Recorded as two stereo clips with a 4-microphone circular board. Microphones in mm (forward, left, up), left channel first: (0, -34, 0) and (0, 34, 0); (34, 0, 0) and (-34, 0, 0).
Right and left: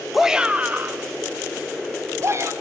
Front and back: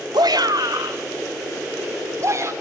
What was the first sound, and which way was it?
A shout, 175° left.